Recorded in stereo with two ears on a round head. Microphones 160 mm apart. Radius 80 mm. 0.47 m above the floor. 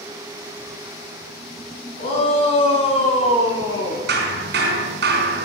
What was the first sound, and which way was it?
A shout, 35° left (ahead or behind).